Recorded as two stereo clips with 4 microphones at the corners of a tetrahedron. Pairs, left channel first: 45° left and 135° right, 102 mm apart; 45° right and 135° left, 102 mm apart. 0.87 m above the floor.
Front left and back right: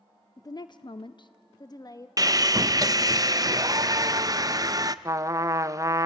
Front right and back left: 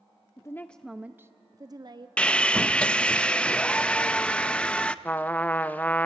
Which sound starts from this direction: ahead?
A woman speaking, at 0.4 s.